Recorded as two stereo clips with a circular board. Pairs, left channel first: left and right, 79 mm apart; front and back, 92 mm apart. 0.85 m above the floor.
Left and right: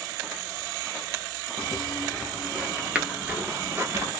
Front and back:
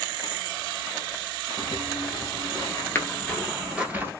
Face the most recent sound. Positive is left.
turn(degrees=-130)